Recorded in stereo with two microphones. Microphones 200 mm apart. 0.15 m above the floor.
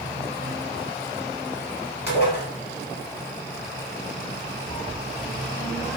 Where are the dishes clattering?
60° left (ahead or behind), 1.9 m.